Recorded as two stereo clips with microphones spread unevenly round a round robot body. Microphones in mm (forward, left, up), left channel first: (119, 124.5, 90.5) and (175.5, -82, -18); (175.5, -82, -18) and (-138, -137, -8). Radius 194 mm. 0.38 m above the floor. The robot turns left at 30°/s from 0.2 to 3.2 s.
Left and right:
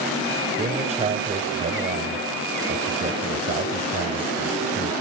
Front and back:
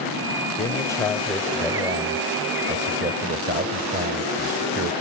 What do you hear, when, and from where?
0.6 s a man speaking: 55° right, 1.3 m; by 4.9 s 135° right, 1.3 m